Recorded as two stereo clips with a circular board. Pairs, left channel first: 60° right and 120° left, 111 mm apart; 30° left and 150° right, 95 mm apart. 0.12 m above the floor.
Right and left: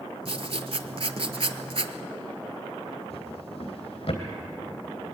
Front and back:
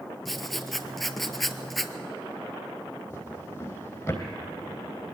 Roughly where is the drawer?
Ahead right.